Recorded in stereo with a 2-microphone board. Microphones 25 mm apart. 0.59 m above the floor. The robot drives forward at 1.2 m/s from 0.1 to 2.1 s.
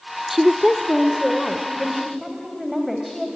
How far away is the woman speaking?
About 0.7 m.